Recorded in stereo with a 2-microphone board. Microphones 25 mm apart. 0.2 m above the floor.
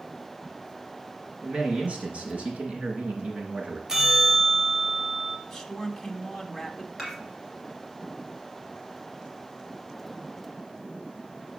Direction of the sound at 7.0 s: 5° right (ahead or behind).